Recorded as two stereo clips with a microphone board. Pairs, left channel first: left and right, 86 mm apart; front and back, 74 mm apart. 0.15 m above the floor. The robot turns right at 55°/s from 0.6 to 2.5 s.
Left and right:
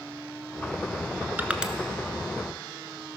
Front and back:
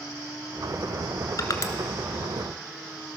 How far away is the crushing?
About 0.9 m.